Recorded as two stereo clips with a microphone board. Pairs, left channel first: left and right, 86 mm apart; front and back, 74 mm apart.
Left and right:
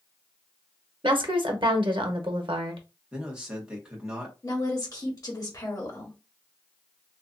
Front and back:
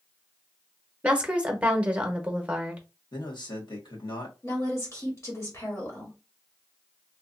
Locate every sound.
1.0 s a woman speaking: 105° right, 0.9 m
3.1 s a man speaking: 10° right, 1.5 m
4.4 s a woman speaking: 45° left, 1.3 m